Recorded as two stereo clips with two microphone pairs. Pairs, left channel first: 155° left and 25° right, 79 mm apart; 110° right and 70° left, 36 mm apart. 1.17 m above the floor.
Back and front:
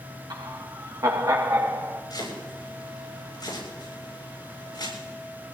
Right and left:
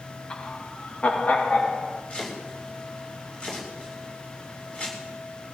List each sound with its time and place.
0.3 s laughter: 50° right, 1.2 m; by 2.0 s 70° right, 2 m
2.1 s chopping: 170° right, 7 m